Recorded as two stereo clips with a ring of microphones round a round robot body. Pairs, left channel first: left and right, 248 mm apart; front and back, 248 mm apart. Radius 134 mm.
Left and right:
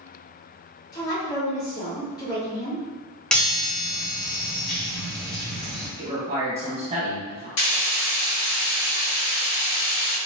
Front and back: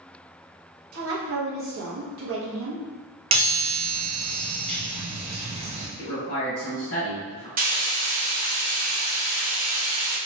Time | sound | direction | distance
0.9 | a woman speaking | 165° left | 0.9 m
3.3 | a chime | 170° left | 0.6 m
6.0 | a man speaking | 30° right | 1.4 m
7.6 | frying | 125° left | 1.2 m